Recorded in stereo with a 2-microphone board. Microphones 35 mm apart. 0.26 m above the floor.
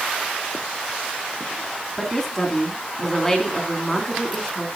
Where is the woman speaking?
10° left (ahead or behind), 3 m.